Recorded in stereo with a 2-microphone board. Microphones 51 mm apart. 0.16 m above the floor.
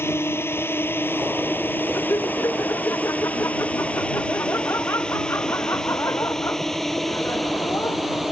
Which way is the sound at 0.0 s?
50° left (ahead or behind).